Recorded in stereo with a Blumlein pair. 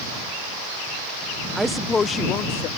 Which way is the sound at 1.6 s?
15° right.